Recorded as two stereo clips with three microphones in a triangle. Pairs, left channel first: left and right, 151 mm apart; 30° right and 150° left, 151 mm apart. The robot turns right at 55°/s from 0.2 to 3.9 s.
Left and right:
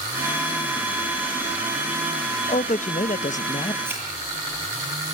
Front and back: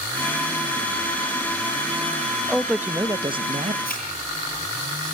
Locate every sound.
2.5 s a man speaking: 55° left, 0.5 m; by 3.8 s 125° left, 0.5 m
3.9 s a thud: 15° right, 9 m